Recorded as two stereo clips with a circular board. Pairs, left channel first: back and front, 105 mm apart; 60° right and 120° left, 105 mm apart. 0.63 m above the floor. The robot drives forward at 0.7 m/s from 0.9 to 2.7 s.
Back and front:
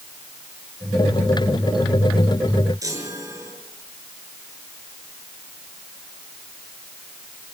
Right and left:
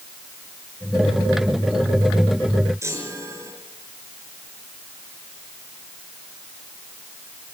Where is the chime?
60° left, 6 m.